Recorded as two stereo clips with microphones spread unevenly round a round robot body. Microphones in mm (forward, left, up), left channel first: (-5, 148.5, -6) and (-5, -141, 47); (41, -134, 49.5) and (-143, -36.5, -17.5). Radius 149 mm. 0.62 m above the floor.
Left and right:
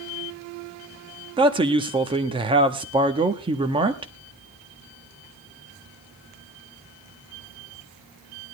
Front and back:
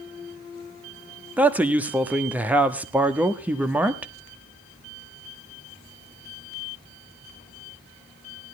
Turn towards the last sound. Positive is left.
turn(degrees=-165)